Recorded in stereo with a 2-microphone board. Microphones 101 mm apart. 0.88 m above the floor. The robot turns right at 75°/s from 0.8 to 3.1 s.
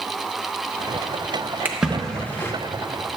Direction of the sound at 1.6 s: 20° right (ahead or behind).